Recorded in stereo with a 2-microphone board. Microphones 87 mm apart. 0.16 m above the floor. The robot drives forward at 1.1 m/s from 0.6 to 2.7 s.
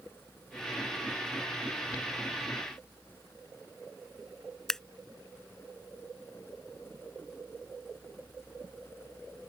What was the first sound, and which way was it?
Scissors, 5° left (ahead or behind).